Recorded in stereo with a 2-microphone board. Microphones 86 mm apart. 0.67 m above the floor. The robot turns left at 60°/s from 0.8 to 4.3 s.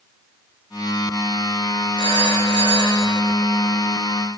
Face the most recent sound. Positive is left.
turn(degrees=-35)